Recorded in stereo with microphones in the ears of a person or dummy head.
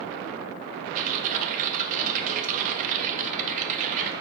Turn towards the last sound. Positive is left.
turn(degrees=-35)  # may be behind; listen again after turning